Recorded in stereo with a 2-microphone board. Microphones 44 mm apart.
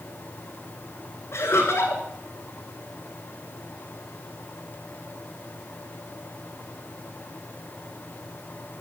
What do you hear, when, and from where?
1.3 s laughter: 75° left (ahead or behind), 6.5 m